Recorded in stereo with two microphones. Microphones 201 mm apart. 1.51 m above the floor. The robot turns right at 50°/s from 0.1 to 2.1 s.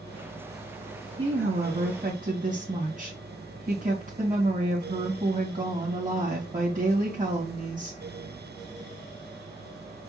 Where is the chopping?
No chopping in this recording.